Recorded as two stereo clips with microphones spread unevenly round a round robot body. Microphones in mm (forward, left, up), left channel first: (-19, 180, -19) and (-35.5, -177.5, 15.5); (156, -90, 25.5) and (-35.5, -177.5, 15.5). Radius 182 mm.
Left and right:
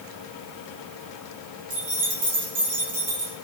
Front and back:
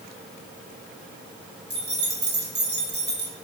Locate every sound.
1.7 s keys jangling: 120° right, 4 m